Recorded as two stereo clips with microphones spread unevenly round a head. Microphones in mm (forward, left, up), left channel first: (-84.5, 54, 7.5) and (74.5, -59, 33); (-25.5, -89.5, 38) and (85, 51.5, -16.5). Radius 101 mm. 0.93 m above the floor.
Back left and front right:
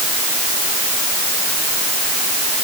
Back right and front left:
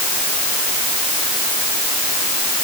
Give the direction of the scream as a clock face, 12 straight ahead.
I don't hear a scream.